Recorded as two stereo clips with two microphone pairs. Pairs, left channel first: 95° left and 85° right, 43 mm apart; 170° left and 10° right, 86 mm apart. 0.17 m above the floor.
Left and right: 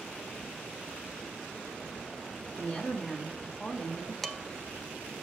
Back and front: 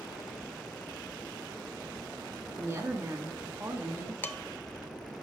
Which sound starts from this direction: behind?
Dishes clattering, at 4.2 s.